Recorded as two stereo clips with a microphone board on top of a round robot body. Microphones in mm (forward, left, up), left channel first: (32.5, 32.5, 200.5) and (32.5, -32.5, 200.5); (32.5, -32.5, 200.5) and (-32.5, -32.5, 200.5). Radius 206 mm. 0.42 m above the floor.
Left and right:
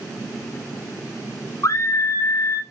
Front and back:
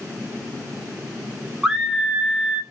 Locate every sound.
1.6 s a scream: 100° left, 1.0 m